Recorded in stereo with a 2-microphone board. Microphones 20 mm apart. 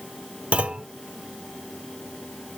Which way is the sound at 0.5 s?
80° right.